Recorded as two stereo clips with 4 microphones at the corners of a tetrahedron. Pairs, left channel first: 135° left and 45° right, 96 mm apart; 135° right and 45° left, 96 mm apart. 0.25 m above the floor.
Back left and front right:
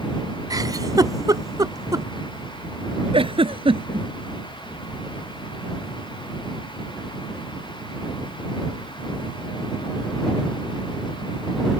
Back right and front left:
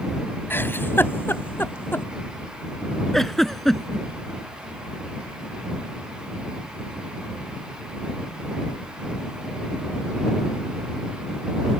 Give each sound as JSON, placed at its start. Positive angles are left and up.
{"t": 0.5, "sound": "a giggle", "azimuth_deg": -75}
{"t": 3.1, "sound": "a giggle", "azimuth_deg": -45}